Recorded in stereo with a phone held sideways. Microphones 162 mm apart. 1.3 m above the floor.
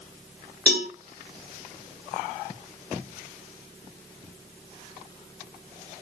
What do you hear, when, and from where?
0.7 s a cowbell: 80° right, 3.5 m